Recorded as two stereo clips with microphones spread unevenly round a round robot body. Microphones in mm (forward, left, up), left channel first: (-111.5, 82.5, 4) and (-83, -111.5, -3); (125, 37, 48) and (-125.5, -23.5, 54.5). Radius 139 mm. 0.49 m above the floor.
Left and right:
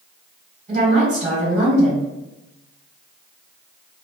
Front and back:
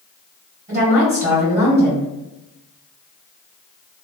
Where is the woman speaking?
110° right, 1.6 m.